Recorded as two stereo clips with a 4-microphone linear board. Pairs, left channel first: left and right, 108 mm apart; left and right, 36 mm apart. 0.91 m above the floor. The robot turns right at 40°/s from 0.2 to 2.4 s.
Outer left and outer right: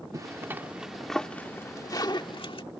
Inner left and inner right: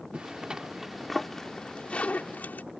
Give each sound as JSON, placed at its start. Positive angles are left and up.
{"t": 0.1, "sound": "a zipper", "side_deg": -35}